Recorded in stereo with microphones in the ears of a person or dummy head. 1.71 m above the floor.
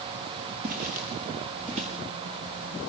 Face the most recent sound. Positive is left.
turn(degrees=-35)  # may be behind; listen again after turning